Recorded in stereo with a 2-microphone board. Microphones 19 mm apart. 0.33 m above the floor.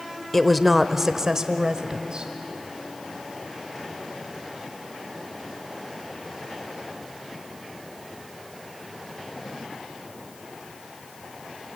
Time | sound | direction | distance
0.3 | a woman speaking | 5° left (ahead or behind) | 1.0 m